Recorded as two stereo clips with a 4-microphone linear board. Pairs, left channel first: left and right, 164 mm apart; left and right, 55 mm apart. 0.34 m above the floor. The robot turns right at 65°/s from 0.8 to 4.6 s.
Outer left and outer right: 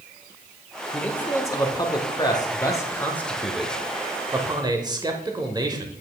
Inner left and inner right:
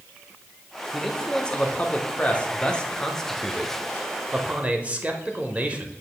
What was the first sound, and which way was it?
A man speaking, 5° left (ahead or behind).